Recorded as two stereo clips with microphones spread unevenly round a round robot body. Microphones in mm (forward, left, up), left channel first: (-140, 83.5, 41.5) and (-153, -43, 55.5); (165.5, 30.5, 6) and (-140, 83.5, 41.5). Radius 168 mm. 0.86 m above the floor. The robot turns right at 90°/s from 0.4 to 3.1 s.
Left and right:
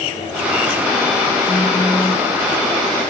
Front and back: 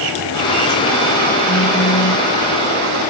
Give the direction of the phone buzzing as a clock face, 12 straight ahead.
1 o'clock.